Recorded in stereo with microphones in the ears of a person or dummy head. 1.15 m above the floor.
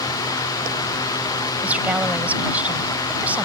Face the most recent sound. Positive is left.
turn(degrees=-10)  # may be behind; listen again after turning